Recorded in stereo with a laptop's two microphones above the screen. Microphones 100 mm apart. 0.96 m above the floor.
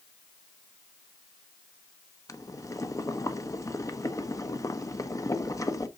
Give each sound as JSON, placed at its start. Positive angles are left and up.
{"t": 2.3, "sound": "boiling", "side_deg": 35, "distance_m": 0.9}